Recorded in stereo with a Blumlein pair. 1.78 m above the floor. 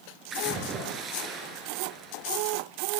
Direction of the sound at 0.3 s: 25° right.